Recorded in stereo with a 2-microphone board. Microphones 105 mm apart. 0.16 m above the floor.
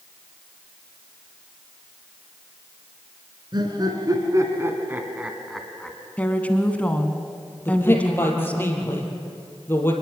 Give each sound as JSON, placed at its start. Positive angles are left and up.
{"t": 3.5, "sound": "laughter", "side_deg": -45, "distance_m": 2.5}
{"t": 6.2, "sound": "a woman speaking", "side_deg": 15, "distance_m": 1.4}
{"t": 7.7, "sound": "a man speaking", "side_deg": 20, "distance_m": 3.5}